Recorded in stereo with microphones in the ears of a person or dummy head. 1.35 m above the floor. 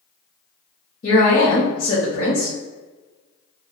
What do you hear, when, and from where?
1.0 s a woman speaking: 45° left (ahead or behind), 0.7 m